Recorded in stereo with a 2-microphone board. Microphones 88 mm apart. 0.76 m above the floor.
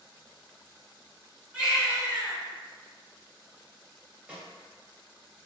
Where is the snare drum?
15° right (ahead or behind), 1.1 m.